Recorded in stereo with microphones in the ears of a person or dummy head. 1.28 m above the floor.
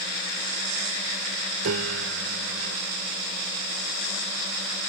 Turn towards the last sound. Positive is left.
turn(degrees=-80)